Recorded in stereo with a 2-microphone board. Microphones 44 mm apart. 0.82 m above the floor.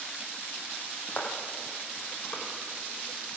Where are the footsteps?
40° left (ahead or behind), 2 m; by 2.4 s 25° left (ahead or behind), 3 m.